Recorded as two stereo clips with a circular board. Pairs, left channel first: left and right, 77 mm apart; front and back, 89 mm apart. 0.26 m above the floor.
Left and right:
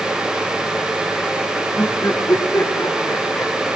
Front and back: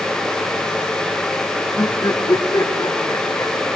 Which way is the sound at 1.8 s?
45° left.